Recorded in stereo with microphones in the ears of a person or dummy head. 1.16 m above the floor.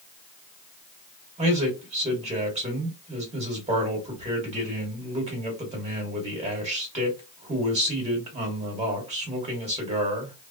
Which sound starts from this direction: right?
A man speaking, at 1.4 s.